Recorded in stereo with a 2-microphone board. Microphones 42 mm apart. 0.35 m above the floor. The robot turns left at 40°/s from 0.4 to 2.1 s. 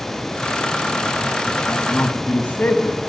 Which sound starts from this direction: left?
A man speaking, at 1.7 s.